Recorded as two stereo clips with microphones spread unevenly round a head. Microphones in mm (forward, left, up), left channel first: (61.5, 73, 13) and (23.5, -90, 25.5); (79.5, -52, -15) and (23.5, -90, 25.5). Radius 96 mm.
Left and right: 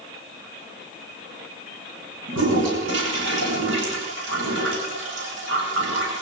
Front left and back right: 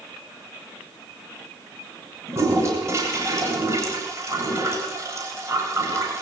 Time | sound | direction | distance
2.3 | a toilet flushing | 105° right | 9 m